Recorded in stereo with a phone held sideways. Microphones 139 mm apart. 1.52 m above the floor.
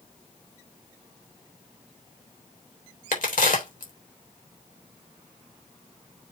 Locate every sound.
3.1 s a crack: 75° left (ahead or behind), 3.5 m